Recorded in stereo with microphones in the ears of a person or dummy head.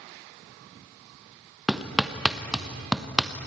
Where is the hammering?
Centre (ahead or behind), 1.1 m.